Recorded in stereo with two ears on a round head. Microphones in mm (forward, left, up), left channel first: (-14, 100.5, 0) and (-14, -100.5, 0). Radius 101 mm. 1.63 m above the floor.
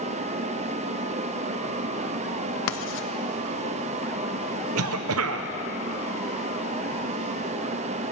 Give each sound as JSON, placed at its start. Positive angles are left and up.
{"t": 2.7, "sound": "writing", "side_deg": 60, "distance_m": 0.8}
{"t": 4.8, "sound": "a cough", "side_deg": -70, "distance_m": 0.9}